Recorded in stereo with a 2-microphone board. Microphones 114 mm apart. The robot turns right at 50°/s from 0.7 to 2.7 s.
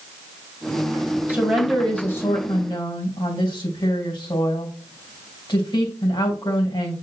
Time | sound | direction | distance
1.3 | a woman speaking | 20° right | 2.5 m